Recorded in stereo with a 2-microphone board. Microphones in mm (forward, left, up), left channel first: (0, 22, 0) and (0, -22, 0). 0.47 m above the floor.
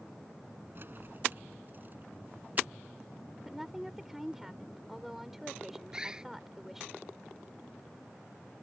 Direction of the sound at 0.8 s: 50° right (ahead or behind).